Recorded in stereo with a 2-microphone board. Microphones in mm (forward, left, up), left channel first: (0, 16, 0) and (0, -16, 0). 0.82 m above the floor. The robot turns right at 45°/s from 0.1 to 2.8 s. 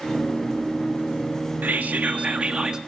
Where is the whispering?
75° right, 1.1 m; by 2.8 s 25° right, 1.1 m.